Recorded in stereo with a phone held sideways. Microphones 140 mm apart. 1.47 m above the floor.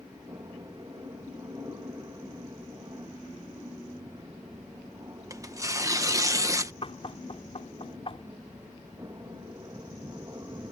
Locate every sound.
0.0 s an aircraft: 25° right (ahead or behind)
5.3 s tearing paper: 25° right (ahead or behind)
6.8 s knocking: 45° left (ahead or behind)